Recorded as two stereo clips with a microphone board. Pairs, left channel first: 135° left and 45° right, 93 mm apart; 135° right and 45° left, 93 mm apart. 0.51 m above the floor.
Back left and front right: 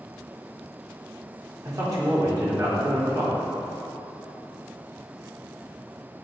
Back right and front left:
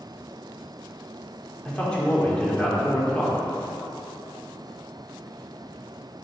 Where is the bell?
I don't hear a bell.